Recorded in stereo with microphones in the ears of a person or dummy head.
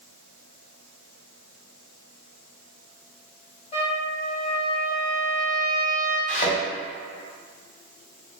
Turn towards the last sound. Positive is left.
turn(degrees=50)  # may be behind; listen again after turning